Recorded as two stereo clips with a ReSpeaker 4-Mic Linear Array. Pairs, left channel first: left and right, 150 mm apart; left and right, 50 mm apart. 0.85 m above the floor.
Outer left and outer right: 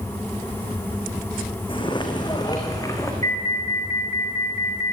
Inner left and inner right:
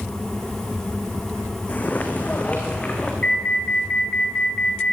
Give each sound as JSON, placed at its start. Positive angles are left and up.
{"t": 1.7, "sound": "footsteps", "side_deg": 35, "distance_m": 2.5}
{"t": 3.2, "sound": "an alarm", "side_deg": 25, "distance_m": 3.0}